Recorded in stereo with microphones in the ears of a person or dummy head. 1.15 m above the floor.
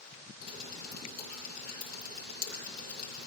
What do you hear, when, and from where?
0.4 s dripping: 55° left (ahead or behind), 8 m